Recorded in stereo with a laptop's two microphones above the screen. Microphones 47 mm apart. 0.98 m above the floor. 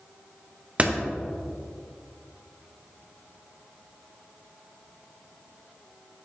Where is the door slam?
25° right (ahead or behind), 0.6 m.